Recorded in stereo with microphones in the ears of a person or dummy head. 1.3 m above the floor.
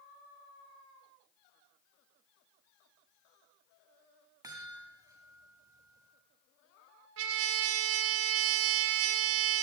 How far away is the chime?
About 2.5 m.